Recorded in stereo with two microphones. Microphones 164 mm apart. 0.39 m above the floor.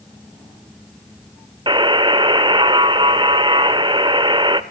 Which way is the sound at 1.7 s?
30° right (ahead or behind).